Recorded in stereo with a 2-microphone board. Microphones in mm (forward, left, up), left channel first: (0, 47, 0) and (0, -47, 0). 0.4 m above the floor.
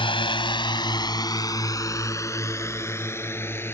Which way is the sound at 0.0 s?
65° left (ahead or behind).